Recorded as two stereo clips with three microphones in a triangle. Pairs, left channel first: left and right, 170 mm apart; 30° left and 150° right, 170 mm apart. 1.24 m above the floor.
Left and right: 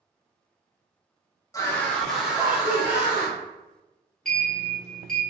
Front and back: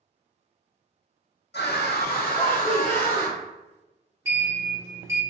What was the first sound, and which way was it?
A scream, 20° left.